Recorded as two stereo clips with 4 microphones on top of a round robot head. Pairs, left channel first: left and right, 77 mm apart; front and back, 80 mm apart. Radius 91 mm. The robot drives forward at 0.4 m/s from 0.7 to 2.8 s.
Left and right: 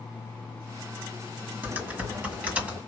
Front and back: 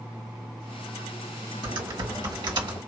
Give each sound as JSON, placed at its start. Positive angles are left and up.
{"t": 1.6, "sound": "typing on a keyboard", "azimuth_deg": -155, "distance_m": 1.7}